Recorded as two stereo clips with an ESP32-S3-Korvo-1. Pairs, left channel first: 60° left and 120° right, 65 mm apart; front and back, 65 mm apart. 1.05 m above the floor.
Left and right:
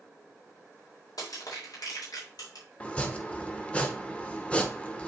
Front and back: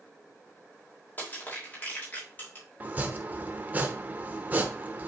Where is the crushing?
60° left, 3.5 m.